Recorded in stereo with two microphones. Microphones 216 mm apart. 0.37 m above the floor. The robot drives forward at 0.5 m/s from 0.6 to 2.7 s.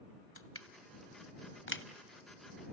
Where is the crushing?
80° left, 0.9 m; by 1.8 s 60° left (ahead or behind), 1.1 m.